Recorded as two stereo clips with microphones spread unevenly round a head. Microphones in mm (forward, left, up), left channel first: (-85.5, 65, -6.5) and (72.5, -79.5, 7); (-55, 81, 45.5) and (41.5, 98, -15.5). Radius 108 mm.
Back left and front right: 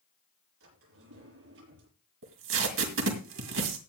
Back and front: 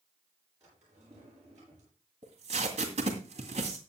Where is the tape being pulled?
65° right, 2 m.